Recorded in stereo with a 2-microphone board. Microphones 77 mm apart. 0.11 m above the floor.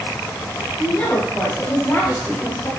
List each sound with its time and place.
0.8 s a woman speaking: 25° left (ahead or behind), 7 m